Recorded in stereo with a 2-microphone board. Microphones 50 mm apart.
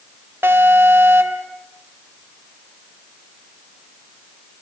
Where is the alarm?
50° right (ahead or behind), 2.5 m.